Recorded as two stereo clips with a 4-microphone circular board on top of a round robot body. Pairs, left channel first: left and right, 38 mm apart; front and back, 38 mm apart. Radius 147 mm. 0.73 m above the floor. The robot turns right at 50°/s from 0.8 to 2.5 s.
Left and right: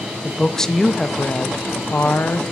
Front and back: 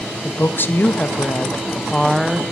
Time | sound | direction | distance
0.2 | a woman speaking | 15° left | 0.8 m